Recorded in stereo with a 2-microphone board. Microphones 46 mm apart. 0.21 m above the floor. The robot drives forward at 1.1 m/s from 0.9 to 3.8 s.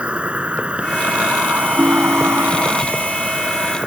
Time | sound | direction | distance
0.0 | an insect | 25° right (ahead or behind) | ?
1.8 | a ringtone | 30° right (ahead or behind) | ?